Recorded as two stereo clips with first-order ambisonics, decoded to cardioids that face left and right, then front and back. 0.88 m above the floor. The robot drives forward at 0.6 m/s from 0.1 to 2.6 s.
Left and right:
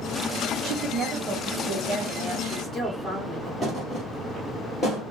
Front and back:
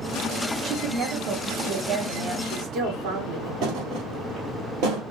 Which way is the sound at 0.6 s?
125° right.